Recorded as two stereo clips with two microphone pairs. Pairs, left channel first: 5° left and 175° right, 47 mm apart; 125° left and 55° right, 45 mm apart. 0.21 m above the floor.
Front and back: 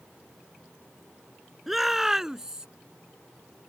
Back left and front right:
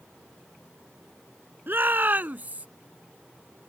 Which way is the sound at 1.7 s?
90° right.